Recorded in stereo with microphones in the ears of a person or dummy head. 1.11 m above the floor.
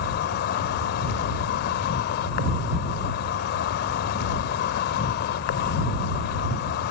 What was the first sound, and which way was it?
An insect, 70° left (ahead or behind).